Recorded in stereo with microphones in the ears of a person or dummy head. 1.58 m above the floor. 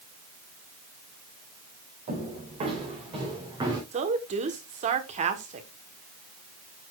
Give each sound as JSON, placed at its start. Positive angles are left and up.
{"t": 2.1, "sound": "footsteps", "side_deg": -40, "distance_m": 5.5}
{"t": 3.9, "sound": "a woman speaking", "side_deg": -35, "distance_m": 1.1}